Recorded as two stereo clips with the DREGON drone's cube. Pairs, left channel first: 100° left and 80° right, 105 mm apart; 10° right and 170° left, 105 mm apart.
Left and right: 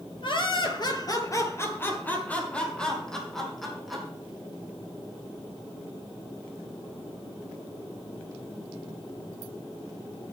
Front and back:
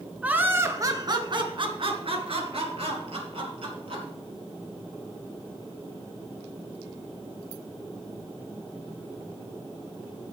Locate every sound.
0.2 s laughter: 95° left, 1.9 m; by 4.0 s 170° right, 4.5 m